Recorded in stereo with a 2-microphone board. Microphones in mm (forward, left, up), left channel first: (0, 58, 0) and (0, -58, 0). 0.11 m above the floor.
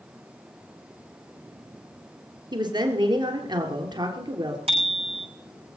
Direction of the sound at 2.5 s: 40° right (ahead or behind).